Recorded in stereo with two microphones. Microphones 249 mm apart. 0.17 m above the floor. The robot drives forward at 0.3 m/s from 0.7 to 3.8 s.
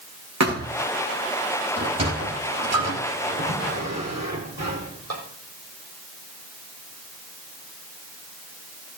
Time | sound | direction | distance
0.4 | a thud | 85° right | 6.5 m
1.8 | a sliding door | 70° right (ahead or behind) | 4 m